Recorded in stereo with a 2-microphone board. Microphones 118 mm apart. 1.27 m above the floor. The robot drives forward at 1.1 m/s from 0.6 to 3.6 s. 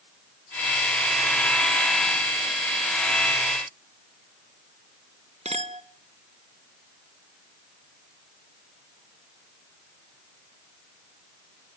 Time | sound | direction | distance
5.5 | a clink | 65° right (ahead or behind) | 1.3 m